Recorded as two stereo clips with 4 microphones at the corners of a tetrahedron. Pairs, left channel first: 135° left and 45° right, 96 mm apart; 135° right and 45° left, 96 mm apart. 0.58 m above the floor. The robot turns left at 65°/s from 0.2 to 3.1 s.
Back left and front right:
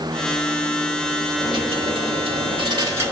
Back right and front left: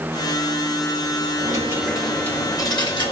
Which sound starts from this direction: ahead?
A dropped coin, at 1.4 s.